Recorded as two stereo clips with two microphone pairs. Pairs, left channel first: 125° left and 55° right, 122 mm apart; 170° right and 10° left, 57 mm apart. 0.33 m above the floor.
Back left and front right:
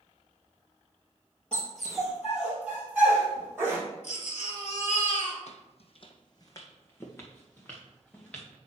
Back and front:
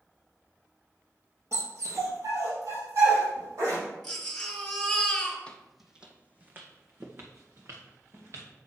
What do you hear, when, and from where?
1.5 s a dog barking: 45° left, 3 m; by 3.8 s 15° left, 4.5 m
4.0 s a baby crying: 105° left, 2.5 m
5.5 s footsteps: 120° left, 0.8 m; by 8.5 s 45° left, 3 m